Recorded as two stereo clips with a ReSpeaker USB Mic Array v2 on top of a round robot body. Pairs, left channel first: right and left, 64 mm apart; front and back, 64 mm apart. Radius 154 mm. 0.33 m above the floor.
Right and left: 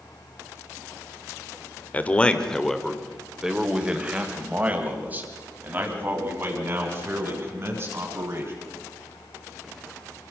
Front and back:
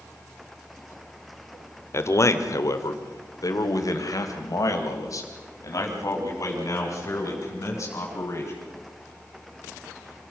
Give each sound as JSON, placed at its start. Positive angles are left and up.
{"t": 1.9, "sound": "a man speaking", "azimuth_deg": -30, "distance_m": 1.8}